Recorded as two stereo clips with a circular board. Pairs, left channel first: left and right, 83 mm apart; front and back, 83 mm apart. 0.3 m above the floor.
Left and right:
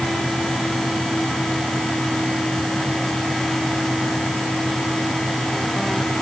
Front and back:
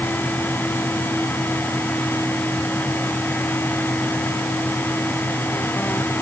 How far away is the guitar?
I don't hear a guitar.